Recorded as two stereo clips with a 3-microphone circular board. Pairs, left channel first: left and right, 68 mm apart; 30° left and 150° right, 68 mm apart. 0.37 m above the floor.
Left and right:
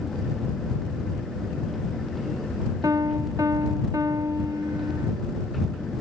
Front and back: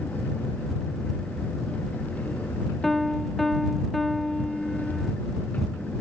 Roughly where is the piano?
Ahead right.